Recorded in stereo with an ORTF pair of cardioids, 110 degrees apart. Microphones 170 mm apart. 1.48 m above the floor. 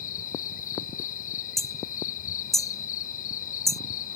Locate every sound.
0.0 s an insect: 55° left
1.6 s hammering: straight ahead